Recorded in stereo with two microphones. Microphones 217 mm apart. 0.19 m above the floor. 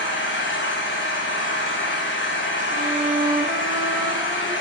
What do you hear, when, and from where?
0.0 s an engine running: 60° left (ahead or behind), 5.5 m
2.7 s a violin: 20° right (ahead or behind), 6.5 m